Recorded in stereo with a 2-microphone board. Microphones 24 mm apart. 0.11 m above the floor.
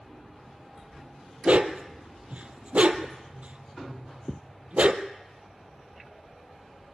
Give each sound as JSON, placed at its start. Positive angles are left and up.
{"t": 1.4, "sound": "a dog barking", "side_deg": -65, "distance_m": 1.0}